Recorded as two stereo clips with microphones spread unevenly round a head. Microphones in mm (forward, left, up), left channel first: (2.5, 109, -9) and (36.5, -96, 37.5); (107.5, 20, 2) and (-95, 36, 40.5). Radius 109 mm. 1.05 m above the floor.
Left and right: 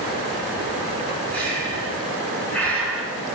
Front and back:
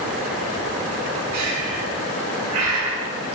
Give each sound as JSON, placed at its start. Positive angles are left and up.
{"t": 1.3, "sound": "breathing", "azimuth_deg": -175, "distance_m": 4.0}